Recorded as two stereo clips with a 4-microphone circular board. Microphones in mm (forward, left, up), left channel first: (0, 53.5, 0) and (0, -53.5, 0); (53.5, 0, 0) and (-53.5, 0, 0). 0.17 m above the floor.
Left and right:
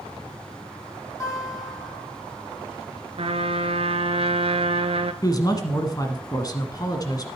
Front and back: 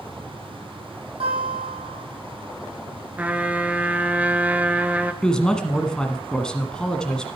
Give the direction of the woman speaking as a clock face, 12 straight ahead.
9 o'clock.